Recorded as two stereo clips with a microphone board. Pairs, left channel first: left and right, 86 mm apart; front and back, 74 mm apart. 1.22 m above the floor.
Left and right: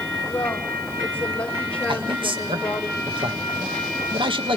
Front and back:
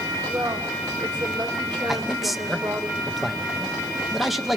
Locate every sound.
0.3 s a woman speaking: 165° left, 6.5 m; by 2.9 s 170° left, 5 m
1.9 s a man speaking: 90° right, 1.7 m